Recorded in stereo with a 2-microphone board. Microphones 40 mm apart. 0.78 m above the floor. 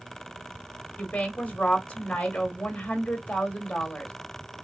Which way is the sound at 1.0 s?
25° left (ahead or behind).